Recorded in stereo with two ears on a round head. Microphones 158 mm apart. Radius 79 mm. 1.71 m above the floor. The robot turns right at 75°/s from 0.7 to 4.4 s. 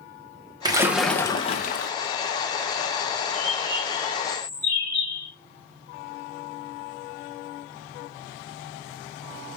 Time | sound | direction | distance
0.7 | a splash | 25° right | 1.2 m
3.3 | a bird | 100° right | 4 m